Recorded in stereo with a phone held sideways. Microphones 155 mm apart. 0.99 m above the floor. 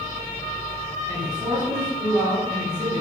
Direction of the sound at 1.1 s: 25° right (ahead or behind).